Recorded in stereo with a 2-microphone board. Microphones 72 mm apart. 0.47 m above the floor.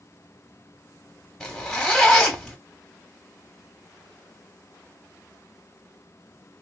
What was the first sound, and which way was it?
A zipper, 5° left (ahead or behind).